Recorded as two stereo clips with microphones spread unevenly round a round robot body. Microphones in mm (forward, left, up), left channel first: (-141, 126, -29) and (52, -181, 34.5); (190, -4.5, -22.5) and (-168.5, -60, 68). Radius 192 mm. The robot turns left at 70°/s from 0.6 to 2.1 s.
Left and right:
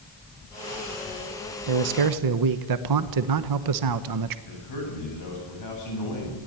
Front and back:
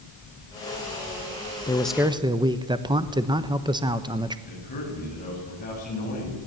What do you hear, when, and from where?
1.7 s a man speaking: 55° right, 1.0 m; by 4.4 s 85° right, 1.0 m
4.5 s a man speaking: 80° left, 8.5 m